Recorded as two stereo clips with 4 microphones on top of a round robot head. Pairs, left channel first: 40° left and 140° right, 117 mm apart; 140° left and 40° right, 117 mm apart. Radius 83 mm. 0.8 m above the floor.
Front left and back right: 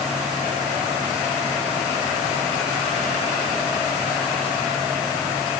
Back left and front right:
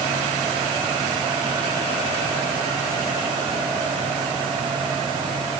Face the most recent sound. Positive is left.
No sound to turn to.